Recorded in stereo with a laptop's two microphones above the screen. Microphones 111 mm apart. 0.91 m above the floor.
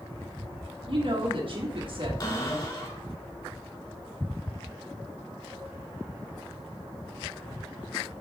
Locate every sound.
0.9 s a woman speaking: 55° right (ahead or behind), 1.6 m
2.2 s a cupboard door: 40° left (ahead or behind), 3 m